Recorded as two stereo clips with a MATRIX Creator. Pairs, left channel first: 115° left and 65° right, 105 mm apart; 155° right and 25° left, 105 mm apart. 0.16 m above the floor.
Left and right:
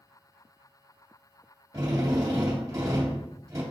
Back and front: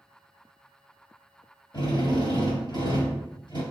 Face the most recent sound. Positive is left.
turn(degrees=-125)